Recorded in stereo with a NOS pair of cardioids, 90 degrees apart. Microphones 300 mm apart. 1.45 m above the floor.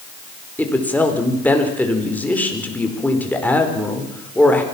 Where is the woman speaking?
5° left, 5 m.